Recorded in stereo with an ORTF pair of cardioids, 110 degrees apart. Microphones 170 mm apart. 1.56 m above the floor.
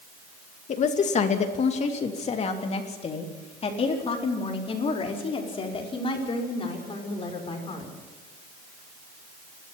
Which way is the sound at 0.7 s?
45° left.